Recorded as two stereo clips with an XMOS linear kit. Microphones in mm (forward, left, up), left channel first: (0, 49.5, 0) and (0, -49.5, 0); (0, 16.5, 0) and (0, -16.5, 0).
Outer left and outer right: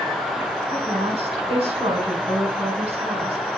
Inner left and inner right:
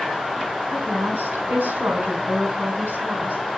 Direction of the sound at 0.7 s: 75° right (ahead or behind).